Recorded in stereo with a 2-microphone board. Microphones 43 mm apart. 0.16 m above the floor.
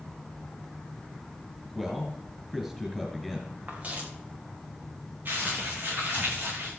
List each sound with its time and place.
1.7 s a man speaking: centre (ahead or behind), 3 m
3.7 s footsteps: 40° right (ahead or behind), 5 m
5.2 s crumpling: 50° right (ahead or behind), 9.5 m